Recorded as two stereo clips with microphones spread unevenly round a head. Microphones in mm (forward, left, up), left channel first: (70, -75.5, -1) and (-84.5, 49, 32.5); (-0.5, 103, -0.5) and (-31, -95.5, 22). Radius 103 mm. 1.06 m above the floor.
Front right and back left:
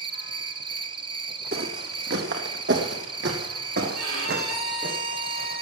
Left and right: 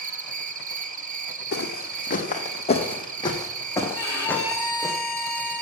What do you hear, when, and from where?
0.0 s an insect: 150° right, 1.0 m
1.5 s footsteps: 115° left, 2 m; by 4.9 s 175° left, 3 m
3.9 s a violin: 160° left, 7.5 m